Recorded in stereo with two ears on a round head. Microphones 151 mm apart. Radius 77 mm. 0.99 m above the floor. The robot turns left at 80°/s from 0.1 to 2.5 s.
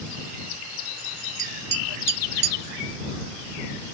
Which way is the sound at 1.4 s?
20° right (ahead or behind).